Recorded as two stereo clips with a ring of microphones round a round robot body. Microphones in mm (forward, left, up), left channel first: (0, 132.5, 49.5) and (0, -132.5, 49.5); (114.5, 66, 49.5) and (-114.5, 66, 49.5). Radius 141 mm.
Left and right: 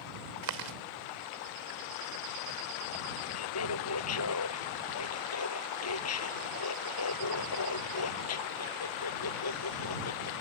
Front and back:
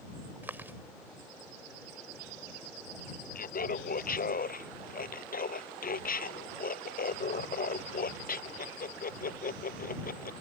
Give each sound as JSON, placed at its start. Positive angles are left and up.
{"t": 0.4, "sound": "chewing", "azimuth_deg": -95}
{"t": 3.4, "sound": "laughter", "azimuth_deg": 55}